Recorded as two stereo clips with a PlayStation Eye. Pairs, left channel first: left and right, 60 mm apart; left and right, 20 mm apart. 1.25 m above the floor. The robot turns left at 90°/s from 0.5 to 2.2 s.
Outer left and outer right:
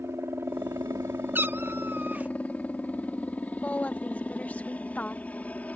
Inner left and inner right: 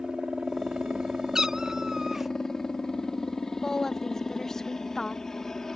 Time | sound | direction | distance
0.0 | a helicopter | 55° right | ?
1.4 | a cat meowing | 65° right | ?
3.6 | a woman speaking | 30° left (ahead or behind) | ?